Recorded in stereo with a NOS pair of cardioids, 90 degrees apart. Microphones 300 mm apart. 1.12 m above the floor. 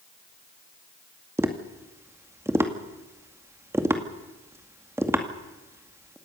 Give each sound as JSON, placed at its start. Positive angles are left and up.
{"t": 1.4, "sound": "tapping", "azimuth_deg": -10, "distance_m": 2.0}